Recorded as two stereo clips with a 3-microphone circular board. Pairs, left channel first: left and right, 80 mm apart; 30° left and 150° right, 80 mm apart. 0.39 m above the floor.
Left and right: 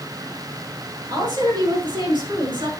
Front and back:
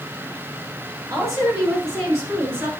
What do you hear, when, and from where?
1.1 s a woman speaking: 105° right, 6.5 m; by 2.7 s 85° right, 6 m